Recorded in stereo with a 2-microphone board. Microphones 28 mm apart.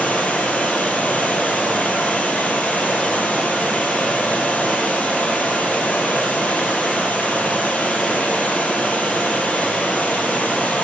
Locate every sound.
0.0 s running water: 65° left (ahead or behind), 1.3 m